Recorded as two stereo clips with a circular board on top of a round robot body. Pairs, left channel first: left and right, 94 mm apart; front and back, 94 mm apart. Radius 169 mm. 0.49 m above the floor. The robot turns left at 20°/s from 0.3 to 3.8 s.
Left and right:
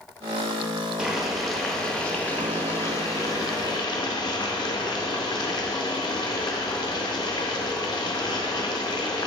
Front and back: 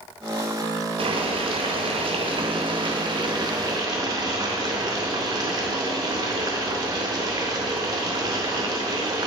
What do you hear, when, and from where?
1.0 s boiling: 170° right, 0.6 m; by 9.3 s 135° left, 0.6 m